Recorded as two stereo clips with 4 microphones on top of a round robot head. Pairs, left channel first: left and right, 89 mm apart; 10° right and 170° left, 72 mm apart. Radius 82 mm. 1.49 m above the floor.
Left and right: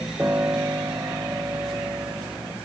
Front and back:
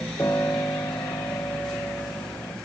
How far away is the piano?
About 1.3 m.